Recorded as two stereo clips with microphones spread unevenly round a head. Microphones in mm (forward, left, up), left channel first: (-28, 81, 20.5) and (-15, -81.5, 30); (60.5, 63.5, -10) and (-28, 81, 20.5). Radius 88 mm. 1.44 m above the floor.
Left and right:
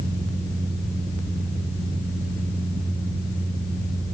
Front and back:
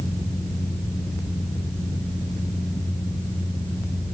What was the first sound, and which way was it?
Only background noise.